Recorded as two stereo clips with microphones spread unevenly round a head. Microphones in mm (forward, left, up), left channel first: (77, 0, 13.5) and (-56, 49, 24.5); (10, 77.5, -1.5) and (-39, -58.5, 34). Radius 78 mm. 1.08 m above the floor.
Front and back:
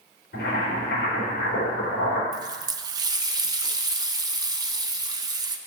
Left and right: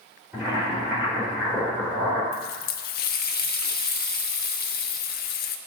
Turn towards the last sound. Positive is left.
turn(degrees=100)